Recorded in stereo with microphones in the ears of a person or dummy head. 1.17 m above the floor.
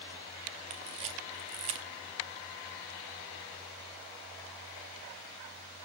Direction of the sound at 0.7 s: 25° right (ahead or behind).